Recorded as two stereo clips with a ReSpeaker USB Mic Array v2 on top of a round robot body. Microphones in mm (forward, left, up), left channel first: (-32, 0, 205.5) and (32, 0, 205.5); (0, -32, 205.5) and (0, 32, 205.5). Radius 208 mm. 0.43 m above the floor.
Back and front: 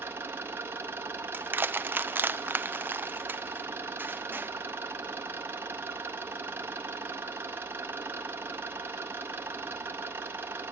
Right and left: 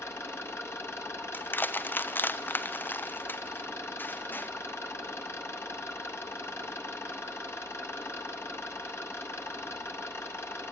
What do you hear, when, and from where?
0.0 s an engine running: 50° right, 1.8 m
1.3 s crushing: 45° right, 0.9 m